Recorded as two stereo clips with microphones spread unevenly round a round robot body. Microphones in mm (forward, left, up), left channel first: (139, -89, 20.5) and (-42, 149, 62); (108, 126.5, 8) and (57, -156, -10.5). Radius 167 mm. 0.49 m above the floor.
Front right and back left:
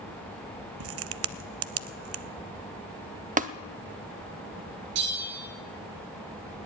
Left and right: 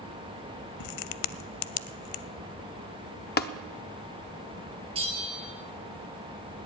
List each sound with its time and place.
0.8 s a crack: 85° left, 0.5 m
3.4 s tapping: 75° left, 0.8 m
5.0 s a bell: 175° right, 1.7 m